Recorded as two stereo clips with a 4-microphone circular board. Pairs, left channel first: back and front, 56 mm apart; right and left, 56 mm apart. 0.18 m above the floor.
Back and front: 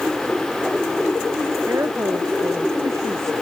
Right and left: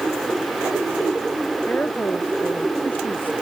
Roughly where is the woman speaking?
Ahead right.